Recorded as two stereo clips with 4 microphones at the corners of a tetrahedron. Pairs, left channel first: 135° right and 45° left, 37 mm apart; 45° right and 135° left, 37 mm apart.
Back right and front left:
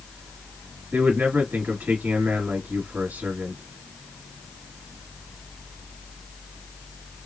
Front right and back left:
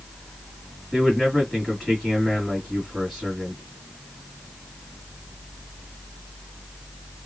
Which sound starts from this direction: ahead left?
A man speaking, at 0.9 s.